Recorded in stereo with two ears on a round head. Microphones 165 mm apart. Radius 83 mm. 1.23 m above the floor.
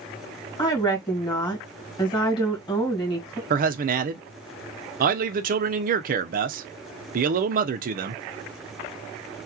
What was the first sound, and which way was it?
A woman speaking, 25° left (ahead or behind).